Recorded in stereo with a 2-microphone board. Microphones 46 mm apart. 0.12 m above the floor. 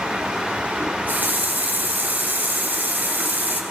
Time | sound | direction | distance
0.8 | a running tap | 40° right (ahead or behind) | 1.4 m